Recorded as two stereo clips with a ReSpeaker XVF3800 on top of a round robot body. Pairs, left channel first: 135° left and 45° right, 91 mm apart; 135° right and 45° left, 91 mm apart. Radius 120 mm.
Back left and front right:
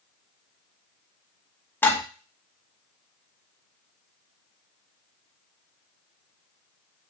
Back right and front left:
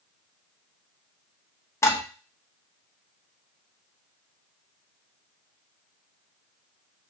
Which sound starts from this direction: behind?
Dishes clattering, at 1.8 s.